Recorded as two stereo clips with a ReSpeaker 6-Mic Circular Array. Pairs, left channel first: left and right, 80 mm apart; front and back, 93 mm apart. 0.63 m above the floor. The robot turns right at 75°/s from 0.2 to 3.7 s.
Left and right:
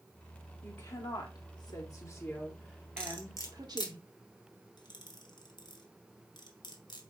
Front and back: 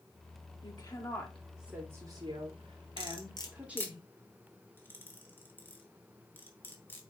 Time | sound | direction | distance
0.6 | a woman speaking | 25° left | 2 m
3.0 | cutlery clinking | 10° left | 1.5 m